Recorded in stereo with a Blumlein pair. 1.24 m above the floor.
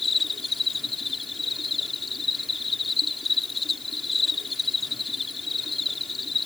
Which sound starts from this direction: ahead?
An insect, at 0.0 s.